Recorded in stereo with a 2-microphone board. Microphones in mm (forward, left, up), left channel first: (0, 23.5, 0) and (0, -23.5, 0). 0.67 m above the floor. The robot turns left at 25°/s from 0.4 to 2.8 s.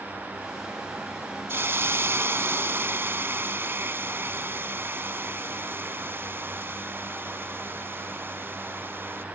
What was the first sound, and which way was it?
A hiss, 75° right.